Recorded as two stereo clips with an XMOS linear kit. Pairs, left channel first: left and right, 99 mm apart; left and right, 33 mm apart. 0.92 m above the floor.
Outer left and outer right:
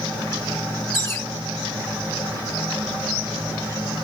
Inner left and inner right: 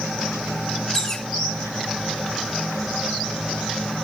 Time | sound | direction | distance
0.9 | a bird | 25° left (ahead or behind) | 1.1 m